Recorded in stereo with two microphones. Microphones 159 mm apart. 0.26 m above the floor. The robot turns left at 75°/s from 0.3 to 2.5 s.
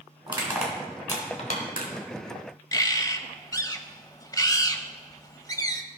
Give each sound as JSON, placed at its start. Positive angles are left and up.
{"t": 0.3, "sound": "crushing", "side_deg": -30, "distance_m": 2.5}
{"t": 2.7, "sound": "a bird", "side_deg": 25, "distance_m": 0.6}